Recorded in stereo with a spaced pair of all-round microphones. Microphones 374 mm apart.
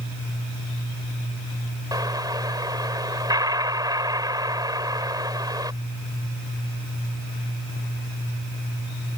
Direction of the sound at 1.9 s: 10° right (ahead or behind).